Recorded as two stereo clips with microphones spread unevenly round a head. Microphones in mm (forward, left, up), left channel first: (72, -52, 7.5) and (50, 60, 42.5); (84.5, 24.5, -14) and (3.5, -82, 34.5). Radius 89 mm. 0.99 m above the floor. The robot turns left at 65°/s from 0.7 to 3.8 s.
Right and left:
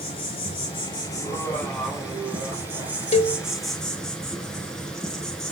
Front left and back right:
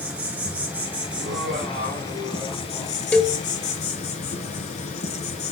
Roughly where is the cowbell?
Ahead right.